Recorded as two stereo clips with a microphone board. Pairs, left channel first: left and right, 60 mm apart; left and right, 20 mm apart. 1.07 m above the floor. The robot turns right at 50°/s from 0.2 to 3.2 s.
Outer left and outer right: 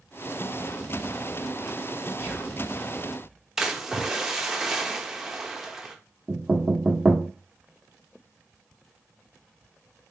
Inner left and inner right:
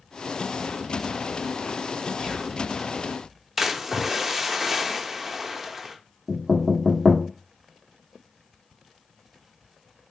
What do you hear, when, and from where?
2.2 s whispering: 45° left (ahead or behind), 1.9 m; by 2.6 s 65° left (ahead or behind), 1.9 m
3.6 s a splash: 10° right (ahead or behind), 0.6 m
6.3 s knocking: 15° right (ahead or behind), 1.2 m